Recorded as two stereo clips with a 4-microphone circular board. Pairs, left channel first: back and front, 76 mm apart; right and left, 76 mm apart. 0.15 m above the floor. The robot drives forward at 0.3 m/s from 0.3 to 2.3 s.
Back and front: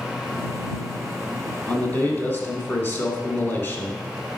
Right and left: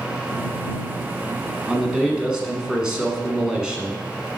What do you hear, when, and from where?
1.7 s a man speaking: 155° left, 1.3 m; by 4.4 s 165° left, 1.3 m